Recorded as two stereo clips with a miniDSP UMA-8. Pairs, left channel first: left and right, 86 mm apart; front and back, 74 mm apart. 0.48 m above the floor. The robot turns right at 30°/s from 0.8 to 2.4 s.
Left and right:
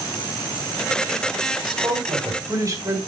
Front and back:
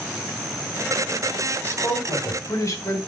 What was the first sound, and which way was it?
A man speaking, 65° right.